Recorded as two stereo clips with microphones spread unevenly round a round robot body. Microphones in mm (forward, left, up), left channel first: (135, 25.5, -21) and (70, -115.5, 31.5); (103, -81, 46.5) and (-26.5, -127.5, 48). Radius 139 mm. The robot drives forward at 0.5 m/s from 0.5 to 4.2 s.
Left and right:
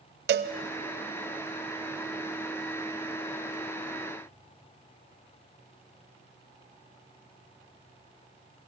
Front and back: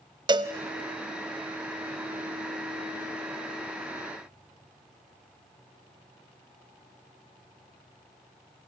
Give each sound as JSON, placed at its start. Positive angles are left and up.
{"t": 0.3, "sound": "a cowbell", "azimuth_deg": -105, "distance_m": 1.1}